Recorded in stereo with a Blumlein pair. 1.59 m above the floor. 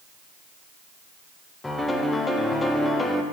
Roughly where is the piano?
Ahead.